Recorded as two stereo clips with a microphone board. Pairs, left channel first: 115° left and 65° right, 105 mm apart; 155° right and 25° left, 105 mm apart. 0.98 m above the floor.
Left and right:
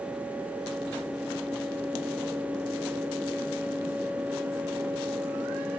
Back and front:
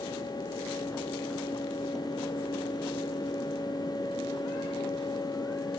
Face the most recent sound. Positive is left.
No sound to turn to.